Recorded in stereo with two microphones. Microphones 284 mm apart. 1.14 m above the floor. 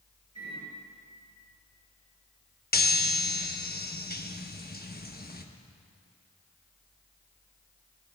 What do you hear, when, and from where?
0.3 s a microwave: 65° right (ahead or behind), 5 m
2.7 s a chime: 35° left (ahead or behind), 0.9 m